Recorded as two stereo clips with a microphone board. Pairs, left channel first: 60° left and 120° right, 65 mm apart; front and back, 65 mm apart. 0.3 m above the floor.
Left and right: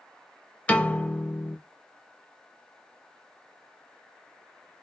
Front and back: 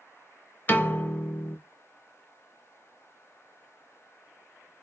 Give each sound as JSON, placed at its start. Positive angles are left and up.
{"t": 0.7, "sound": "a piano", "azimuth_deg": 20, "distance_m": 0.7}